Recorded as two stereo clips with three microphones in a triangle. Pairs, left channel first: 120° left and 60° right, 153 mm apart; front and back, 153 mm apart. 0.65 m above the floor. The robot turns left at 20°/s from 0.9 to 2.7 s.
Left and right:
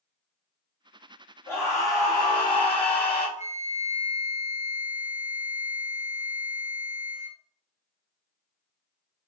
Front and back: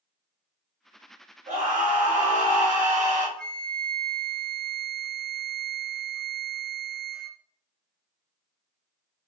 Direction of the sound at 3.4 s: 85° left.